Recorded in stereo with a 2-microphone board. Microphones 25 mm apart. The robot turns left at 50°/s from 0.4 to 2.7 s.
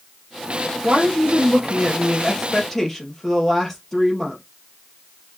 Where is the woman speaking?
100° right, 2.5 m; by 4.4 s 165° left, 2.5 m.